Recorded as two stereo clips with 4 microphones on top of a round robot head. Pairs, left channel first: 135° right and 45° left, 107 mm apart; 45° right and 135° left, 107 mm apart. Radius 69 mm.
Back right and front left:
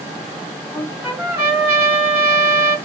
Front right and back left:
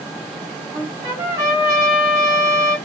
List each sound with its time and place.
0.7 s a trumpet: 120° left, 2 m